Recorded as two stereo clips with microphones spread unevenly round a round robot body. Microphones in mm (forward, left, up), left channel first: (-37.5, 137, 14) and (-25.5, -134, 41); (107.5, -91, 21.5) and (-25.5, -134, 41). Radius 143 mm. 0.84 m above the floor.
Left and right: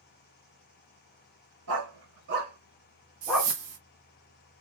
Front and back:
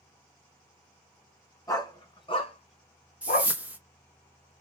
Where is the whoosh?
80° right, 1.7 m.